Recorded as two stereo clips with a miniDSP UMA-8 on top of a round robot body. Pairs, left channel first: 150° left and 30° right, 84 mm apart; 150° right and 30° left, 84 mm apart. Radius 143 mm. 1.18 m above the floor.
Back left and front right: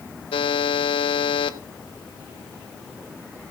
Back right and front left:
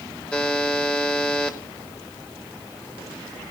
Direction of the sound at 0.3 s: 130° left.